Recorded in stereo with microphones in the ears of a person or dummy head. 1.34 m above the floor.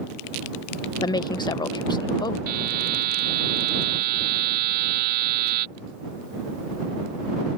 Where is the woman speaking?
25° left (ahead or behind).